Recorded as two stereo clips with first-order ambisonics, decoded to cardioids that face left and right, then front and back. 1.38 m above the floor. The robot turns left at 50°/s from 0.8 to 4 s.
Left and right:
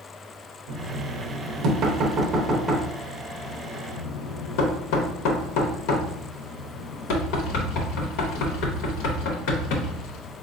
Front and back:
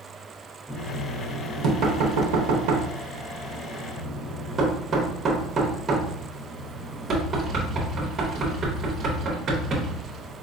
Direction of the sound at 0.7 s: 90° right.